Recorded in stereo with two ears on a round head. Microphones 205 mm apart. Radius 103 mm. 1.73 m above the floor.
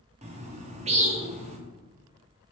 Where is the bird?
30° right (ahead or behind), 0.5 m.